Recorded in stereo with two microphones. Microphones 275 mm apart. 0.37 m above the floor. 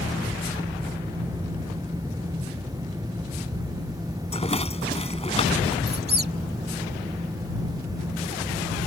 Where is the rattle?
25° left (ahead or behind).